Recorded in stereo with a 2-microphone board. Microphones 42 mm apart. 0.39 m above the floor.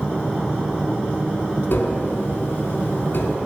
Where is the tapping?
55° left (ahead or behind), 0.8 m.